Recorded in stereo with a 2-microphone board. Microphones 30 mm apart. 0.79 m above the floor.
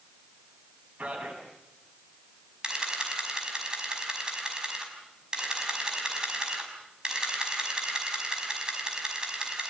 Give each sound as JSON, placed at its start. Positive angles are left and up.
{"t": 1.0, "sound": "a man speaking", "side_deg": -50, "distance_m": 7.5}
{"t": 2.6, "sound": "a camera shutter", "side_deg": -30, "distance_m": 5.5}